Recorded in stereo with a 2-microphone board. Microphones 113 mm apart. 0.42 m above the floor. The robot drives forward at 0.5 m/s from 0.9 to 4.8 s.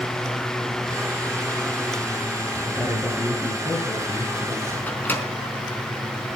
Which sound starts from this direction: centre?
A microwave, at 4.9 s.